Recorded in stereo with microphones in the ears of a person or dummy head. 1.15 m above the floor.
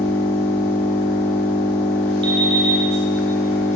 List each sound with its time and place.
0.0 s an engine running: 10° left (ahead or behind), 0.7 m
2.2 s an alarm clock: 25° right (ahead or behind), 1.8 m